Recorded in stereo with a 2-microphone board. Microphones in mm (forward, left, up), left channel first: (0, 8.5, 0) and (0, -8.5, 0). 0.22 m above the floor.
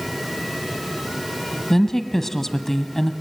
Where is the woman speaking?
15° left (ahead or behind), 1.1 m.